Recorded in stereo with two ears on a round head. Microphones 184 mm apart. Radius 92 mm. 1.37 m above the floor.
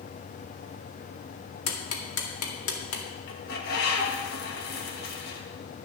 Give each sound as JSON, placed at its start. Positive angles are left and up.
{"t": 1.7, "sound": "ticking", "side_deg": 80, "distance_m": 2.0}
{"t": 3.3, "sound": "a bird", "side_deg": 50, "distance_m": 1.7}